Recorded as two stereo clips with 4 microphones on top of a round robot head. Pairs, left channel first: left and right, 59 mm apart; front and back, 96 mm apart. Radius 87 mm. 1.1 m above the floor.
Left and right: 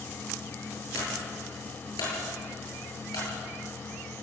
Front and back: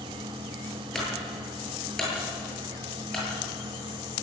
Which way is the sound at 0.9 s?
85° left.